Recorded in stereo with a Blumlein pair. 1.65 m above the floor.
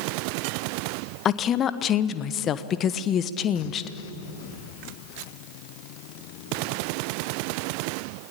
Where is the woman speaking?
25° left, 1.3 m.